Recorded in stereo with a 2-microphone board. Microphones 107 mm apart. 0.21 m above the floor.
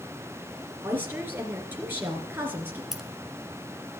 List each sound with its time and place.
0.8 s a woman speaking: 20° right (ahead or behind), 2.5 m
2.9 s keys jangling: 5° right (ahead or behind), 1.5 m